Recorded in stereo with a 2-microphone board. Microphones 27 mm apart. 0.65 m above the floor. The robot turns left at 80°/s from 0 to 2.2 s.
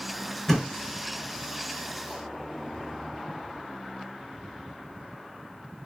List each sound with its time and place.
0.5 s a thud: 15° left (ahead or behind), 0.7 m; by 0.7 s centre (ahead or behind), 0.7 m